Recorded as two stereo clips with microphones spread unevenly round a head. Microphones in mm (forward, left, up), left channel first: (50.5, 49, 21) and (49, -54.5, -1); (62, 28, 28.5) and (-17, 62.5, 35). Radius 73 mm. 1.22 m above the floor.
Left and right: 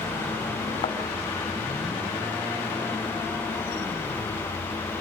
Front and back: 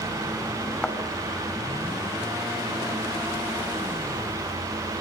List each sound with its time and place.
0.8 s a thud: 55° left, 5 m